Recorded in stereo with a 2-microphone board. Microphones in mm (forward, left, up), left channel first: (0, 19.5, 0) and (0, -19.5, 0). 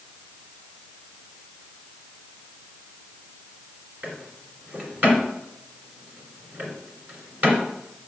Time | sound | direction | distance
4.0 | a drawer | 55° right (ahead or behind) | 2.5 m